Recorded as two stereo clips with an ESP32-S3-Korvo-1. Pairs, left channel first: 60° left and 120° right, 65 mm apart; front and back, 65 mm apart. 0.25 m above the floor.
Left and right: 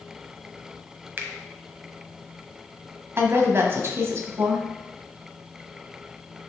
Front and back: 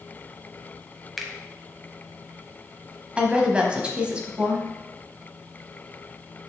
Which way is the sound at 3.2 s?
115° right.